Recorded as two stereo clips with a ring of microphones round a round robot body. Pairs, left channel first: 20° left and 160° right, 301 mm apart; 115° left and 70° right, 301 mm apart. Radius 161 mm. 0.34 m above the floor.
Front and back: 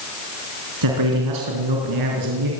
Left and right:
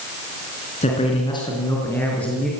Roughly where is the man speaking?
Behind.